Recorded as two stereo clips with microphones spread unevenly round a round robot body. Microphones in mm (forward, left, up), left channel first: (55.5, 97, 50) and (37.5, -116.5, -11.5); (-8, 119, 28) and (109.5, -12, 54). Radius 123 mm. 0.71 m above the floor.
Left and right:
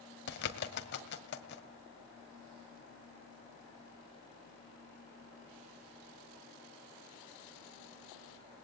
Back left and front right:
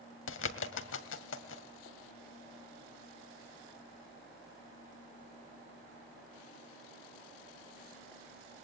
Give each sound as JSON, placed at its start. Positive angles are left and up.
{"t": 0.3, "sound": "a bird", "azimuth_deg": 135, "distance_m": 1.9}